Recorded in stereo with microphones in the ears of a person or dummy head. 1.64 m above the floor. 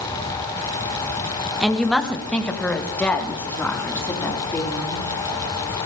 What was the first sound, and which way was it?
A woman speaking, 5° right (ahead or behind).